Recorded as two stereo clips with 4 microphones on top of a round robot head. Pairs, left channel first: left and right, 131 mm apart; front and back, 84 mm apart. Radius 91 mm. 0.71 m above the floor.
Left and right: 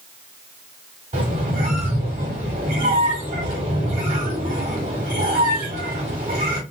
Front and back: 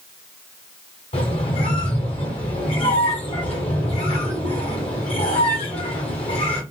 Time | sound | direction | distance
1.1 | a squeak | 35° right | 1.4 m